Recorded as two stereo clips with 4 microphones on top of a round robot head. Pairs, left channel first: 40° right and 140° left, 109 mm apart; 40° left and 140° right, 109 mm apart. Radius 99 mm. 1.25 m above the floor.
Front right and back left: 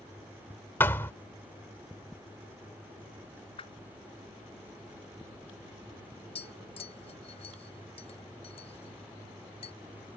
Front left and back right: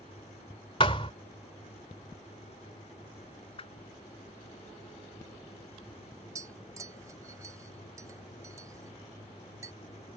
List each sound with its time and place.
0.8 s a thud: 20° left
3.6 s a whoosh: straight ahead
6.3 s tapping: 75° right